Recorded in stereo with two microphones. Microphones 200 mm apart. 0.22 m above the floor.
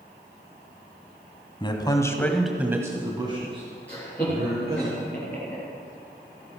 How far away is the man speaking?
About 1.7 m.